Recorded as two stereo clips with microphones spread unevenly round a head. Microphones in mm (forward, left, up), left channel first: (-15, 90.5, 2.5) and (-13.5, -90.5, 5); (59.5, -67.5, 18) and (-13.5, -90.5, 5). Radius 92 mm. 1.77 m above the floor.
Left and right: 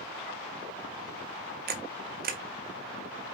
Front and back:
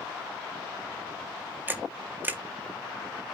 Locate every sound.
1.7 s a camera shutter: 95° right, 0.5 m